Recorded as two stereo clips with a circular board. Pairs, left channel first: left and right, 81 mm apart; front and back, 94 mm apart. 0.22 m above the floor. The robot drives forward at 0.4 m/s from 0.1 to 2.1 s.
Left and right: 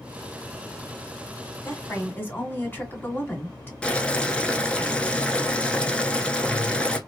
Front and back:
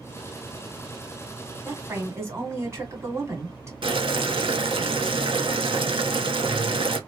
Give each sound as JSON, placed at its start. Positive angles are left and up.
{"t": 1.6, "sound": "a woman speaking", "azimuth_deg": 130, "distance_m": 1.5}
{"t": 3.8, "sound": "boiling", "azimuth_deg": 165, "distance_m": 0.7}